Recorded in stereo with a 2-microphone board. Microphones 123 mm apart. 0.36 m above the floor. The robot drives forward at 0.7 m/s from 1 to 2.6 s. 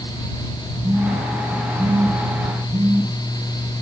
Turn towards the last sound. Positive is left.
turn(degrees=-30)  # may be behind; listen again after turning